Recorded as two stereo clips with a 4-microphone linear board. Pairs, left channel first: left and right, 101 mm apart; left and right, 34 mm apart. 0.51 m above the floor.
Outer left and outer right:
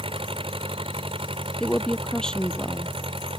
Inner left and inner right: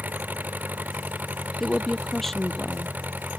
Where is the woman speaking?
5° left (ahead or behind).